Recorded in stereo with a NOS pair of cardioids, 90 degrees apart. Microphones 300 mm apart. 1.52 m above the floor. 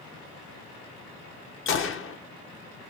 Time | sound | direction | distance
1.7 | a gunshot | 45° left | 1.0 m